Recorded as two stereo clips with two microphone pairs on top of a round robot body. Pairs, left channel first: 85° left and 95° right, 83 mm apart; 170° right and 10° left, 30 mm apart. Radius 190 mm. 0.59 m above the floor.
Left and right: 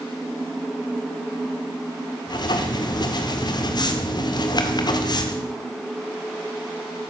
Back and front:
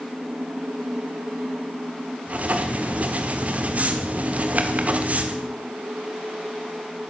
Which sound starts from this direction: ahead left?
Writing, at 2.3 s.